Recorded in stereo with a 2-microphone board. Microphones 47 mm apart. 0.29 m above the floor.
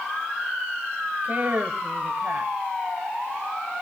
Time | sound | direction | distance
1.2 | a woman speaking | 40° right (ahead or behind) | 1.9 m